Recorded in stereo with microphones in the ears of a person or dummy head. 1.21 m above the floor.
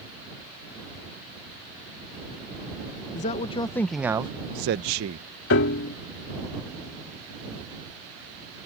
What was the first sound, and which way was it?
A man speaking, 35° left (ahead or behind).